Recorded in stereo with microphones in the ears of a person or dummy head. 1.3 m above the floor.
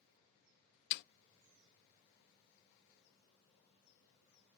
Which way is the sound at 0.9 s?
60° left (ahead or behind).